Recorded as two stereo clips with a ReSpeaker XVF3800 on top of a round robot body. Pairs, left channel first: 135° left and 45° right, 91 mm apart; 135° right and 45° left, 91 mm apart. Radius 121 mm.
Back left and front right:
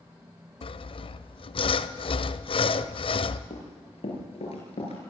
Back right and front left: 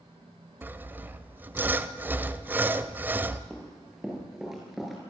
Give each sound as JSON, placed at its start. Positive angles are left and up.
{"t": 0.6, "sound": "sawing", "azimuth_deg": 115, "distance_m": 0.7}
{"t": 3.5, "sound": "running footsteps", "azimuth_deg": 130, "distance_m": 8.0}